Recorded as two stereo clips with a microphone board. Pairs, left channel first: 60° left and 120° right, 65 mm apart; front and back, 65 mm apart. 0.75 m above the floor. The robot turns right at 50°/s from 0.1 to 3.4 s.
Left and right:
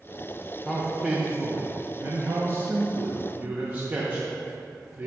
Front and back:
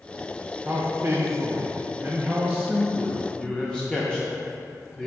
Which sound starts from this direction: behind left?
A man speaking, at 0.7 s.